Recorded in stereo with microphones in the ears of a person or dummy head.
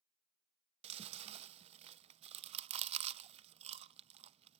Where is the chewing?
35° right (ahead or behind), 0.6 m.